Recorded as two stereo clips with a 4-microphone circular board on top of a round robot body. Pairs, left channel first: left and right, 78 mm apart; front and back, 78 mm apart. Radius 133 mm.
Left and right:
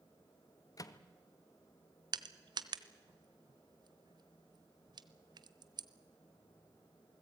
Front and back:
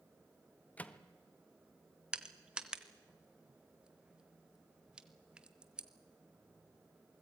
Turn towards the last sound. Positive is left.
turn(degrees=-100)